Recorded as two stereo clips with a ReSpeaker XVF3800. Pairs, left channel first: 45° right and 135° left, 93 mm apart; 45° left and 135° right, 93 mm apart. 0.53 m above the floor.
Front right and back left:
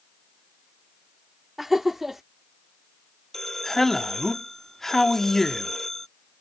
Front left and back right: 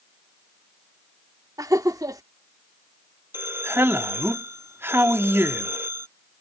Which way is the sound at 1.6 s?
140° right.